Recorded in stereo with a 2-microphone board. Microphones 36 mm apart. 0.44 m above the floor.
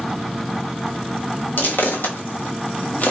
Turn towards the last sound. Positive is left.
turn(degrees=50)  # may be behind; listen again after turning